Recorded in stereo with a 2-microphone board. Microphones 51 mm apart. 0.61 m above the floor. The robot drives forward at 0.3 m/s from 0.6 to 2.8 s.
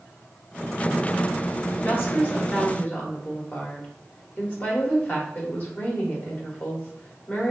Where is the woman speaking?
45° left (ahead or behind), 1.4 m; by 7.5 s 40° left (ahead or behind), 1.5 m.